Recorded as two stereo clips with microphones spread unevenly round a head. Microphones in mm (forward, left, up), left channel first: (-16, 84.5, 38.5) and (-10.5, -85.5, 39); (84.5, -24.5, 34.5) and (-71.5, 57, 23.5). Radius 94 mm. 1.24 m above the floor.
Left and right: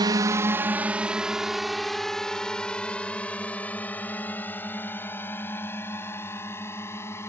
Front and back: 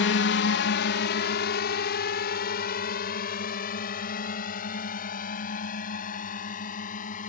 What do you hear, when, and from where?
0.0 s a drone: 25° right; by 7.3 s 15° left